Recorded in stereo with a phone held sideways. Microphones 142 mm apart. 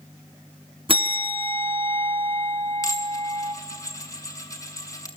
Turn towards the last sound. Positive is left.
turn(degrees=25)  # may be behind; listen again after turning